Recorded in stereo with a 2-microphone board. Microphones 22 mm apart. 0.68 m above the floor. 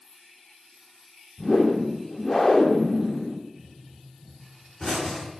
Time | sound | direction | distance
1.4 | a whoosh | 15° left (ahead or behind) | 0.9 m
3.6 | a pop | 15° left (ahead or behind) | 4.5 m